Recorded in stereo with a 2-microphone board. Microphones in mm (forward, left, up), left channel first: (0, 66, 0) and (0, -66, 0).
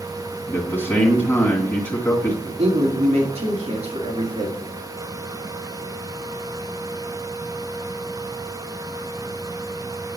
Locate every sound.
0.5 s a man speaking: 15° left (ahead or behind), 1.9 m
2.5 s a man speaking: 55° right (ahead or behind), 3 m